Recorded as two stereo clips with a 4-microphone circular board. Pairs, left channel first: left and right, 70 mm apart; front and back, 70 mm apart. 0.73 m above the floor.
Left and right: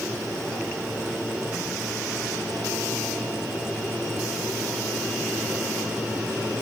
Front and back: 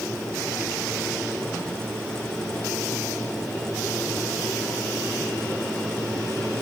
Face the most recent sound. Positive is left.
No sound to turn to.